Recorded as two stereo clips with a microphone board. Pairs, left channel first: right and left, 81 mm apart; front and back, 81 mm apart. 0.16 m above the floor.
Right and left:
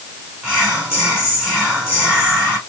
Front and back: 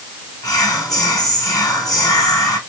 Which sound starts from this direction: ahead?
Whispering, at 0.4 s.